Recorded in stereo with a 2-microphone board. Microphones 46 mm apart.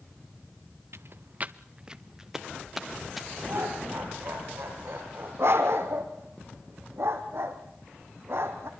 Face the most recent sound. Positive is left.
turn(degrees=-70)  # may be behind; listen again after turning